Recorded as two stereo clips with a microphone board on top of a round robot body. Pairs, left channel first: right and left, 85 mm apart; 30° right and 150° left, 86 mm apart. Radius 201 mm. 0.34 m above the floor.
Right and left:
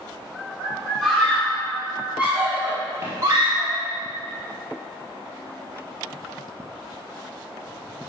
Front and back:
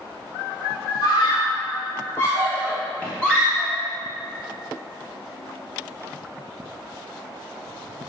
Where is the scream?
Straight ahead, 1.9 m; by 3.8 s 60° left, 1.6 m.